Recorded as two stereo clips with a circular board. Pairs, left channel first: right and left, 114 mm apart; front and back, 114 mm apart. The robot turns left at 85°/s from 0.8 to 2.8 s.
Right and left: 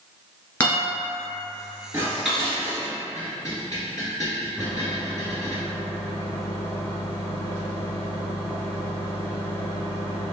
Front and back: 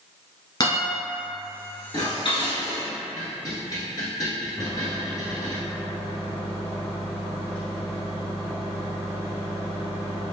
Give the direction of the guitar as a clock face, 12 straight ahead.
1 o'clock.